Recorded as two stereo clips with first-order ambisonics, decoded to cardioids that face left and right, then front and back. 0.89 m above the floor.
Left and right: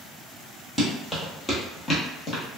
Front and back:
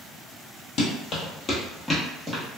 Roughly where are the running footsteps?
Ahead.